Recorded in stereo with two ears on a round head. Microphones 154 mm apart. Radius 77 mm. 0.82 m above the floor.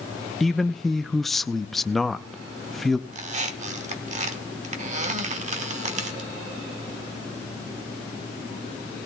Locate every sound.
0.4 s a man speaking: centre (ahead or behind), 0.5 m
3.1 s a squeak: 40° right (ahead or behind), 1.3 m